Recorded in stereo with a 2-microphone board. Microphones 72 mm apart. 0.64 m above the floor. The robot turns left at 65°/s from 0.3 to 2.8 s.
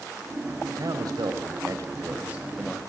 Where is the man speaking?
55° right, 2.5 m; by 2.8 s 170° left, 2.5 m.